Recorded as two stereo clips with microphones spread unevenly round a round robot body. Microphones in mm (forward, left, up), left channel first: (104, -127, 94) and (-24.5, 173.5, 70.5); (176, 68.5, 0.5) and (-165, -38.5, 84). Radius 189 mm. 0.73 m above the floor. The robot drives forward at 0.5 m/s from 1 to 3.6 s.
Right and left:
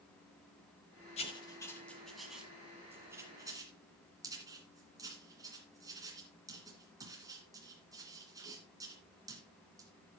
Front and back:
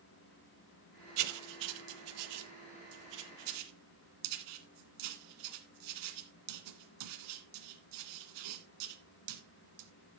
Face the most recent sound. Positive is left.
turn(degrees=-165)